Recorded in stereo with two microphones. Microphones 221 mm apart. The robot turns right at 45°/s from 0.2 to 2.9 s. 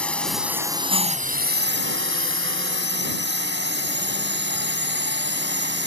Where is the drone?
175° left; by 5.9 s 65° right.